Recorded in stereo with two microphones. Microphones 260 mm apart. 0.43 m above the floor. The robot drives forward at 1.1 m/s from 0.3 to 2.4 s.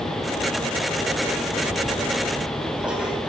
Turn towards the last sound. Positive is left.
turn(degrees=-5)  # may be behind; listen again after turning